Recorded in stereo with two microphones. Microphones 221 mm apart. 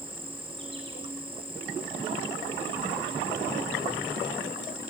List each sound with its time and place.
0.0 s an insect: 25° right (ahead or behind), 4.5 m